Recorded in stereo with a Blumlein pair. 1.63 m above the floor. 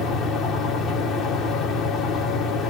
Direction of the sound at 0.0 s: 25° left.